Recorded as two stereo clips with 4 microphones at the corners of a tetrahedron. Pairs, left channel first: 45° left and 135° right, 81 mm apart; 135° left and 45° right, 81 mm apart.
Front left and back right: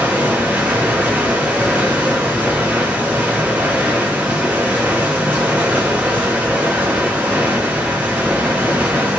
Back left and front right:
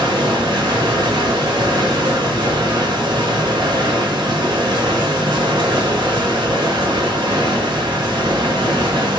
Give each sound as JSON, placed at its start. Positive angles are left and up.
{"t": 0.0, "sound": "running water", "azimuth_deg": -60, "distance_m": 1.0}